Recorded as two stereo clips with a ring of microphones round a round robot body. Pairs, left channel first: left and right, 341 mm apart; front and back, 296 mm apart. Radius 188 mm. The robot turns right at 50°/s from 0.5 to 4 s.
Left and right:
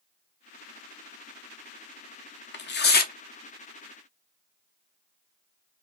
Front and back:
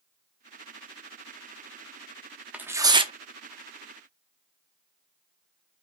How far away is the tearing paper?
About 0.8 m.